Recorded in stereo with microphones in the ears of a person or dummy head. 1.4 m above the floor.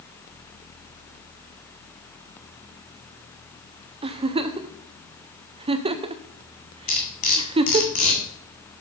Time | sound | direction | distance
4.0 | a giggle | 25° right (ahead or behind) | 0.5 m
6.9 | cutlery clinking | 40° left (ahead or behind) | 1.7 m